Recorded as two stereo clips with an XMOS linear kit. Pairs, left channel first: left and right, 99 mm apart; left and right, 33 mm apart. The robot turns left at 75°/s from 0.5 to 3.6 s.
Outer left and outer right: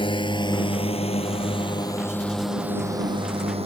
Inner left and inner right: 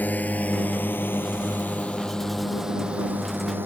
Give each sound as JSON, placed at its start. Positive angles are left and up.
{"t": 0.0, "sound": "a drone", "side_deg": 55}